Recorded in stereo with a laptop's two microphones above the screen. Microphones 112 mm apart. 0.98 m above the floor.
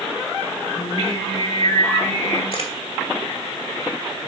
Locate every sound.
0.8 s singing: 70° left (ahead or behind), 4 m
2.5 s a camera shutter: 55° left (ahead or behind), 2.5 m